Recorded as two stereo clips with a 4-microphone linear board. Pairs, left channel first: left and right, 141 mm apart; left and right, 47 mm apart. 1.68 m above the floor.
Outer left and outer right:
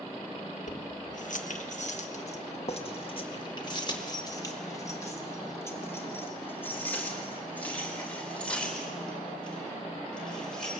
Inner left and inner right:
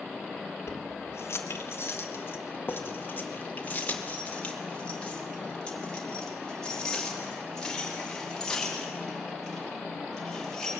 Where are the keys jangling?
65° left (ahead or behind), 1.6 m; by 10.7 s 5° left (ahead or behind), 6 m.